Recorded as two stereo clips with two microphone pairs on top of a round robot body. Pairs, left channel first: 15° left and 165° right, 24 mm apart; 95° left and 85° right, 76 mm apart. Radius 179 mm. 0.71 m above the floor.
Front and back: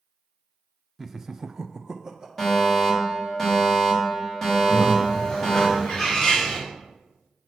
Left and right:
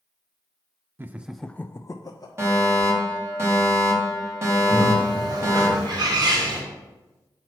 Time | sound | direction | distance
1.0 | laughter | 80° right | 0.5 m
2.4 | a fire alarm | 55° right | 2.5 m
4.7 | a bird | 55° right | 2.0 m